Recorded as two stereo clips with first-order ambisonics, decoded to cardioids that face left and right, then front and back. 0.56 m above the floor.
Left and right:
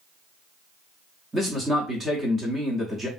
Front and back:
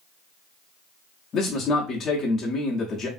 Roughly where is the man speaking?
Ahead.